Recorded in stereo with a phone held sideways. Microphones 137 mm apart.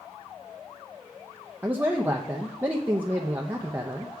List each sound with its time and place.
1.6 s a man speaking: 15° right (ahead or behind), 0.6 m